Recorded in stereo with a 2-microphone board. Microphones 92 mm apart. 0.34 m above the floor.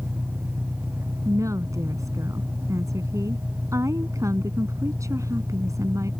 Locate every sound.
0.0 s an engine running: 25° right (ahead or behind)
1.2 s a woman speaking: 35° right (ahead or behind)